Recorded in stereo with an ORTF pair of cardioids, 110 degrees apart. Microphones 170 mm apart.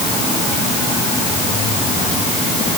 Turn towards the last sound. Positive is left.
No sound to turn to.